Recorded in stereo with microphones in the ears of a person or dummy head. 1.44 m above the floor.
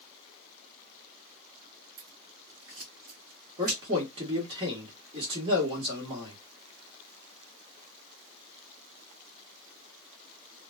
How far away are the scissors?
About 1.6 m.